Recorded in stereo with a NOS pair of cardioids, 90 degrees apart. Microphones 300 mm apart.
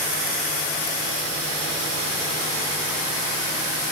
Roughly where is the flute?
No flute in this recording.